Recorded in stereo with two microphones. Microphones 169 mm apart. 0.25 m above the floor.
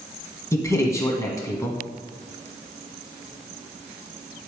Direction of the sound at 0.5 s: 20° left (ahead or behind).